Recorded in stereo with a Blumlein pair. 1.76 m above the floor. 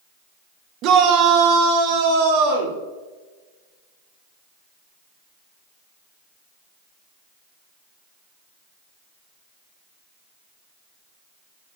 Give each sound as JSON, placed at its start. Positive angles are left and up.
{"t": 0.8, "sound": "a shout", "azimuth_deg": -35, "distance_m": 1.3}